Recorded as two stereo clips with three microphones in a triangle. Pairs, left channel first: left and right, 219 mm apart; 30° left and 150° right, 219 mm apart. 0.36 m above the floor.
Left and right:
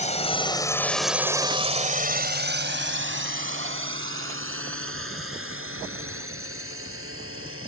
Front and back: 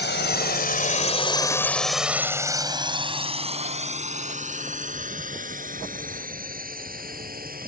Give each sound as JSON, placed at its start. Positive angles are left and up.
{"t": 0.0, "sound": "a drone", "azimuth_deg": 40}